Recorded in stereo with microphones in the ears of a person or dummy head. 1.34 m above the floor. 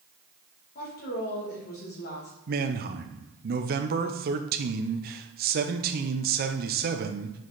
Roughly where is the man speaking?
Right.